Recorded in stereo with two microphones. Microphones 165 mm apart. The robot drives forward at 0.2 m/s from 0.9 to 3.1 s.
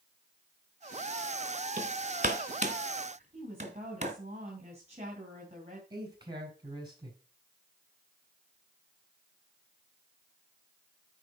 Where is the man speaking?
25° right (ahead or behind), 5 m.